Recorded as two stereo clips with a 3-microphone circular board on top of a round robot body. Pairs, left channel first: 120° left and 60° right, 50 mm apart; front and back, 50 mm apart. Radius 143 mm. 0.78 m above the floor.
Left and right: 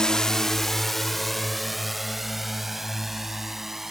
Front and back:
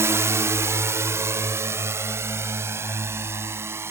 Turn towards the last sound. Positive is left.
turn(degrees=-145)